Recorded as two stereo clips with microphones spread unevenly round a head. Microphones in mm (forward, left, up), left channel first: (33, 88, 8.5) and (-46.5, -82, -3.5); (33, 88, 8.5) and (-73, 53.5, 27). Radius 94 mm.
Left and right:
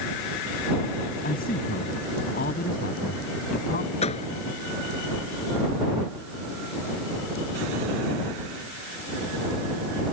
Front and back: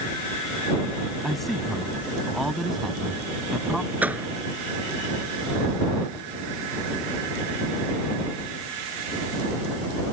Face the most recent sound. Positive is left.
turn(degrees=125)